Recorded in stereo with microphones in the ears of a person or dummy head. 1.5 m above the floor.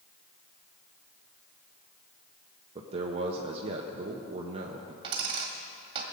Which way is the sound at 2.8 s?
30° right (ahead or behind).